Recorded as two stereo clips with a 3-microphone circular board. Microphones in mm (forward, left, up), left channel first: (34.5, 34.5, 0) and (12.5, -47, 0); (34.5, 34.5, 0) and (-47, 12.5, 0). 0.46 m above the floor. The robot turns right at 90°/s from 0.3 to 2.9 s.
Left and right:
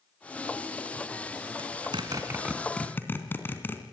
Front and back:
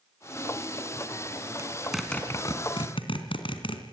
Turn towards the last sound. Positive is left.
turn(degrees=10)